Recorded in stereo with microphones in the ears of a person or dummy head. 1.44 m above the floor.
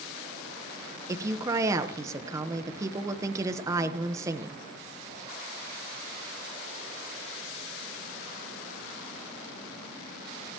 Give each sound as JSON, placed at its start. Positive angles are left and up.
{"t": 1.1, "sound": "a woman speaking", "side_deg": -15, "distance_m": 1.1}